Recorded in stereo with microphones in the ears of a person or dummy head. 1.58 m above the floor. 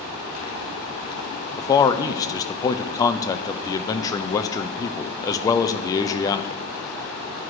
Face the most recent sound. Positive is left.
turn(degrees=20)  # may be behind; listen again after turning